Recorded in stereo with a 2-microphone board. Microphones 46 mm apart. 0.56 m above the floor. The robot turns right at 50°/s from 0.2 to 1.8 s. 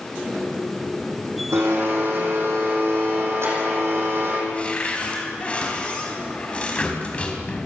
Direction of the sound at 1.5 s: 80° right.